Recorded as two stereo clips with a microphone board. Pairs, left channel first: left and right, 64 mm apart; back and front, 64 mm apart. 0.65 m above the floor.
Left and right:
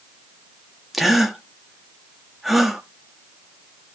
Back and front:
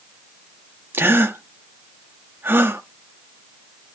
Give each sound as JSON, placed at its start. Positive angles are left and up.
{"t": 0.9, "sound": "a gasp", "azimuth_deg": -5, "distance_m": 1.1}